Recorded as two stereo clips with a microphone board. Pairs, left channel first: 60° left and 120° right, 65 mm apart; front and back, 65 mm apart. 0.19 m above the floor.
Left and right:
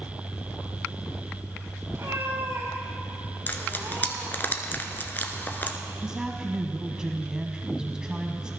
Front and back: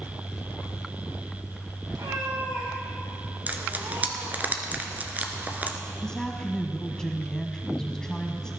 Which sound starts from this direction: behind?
A cat meowing, at 1.9 s.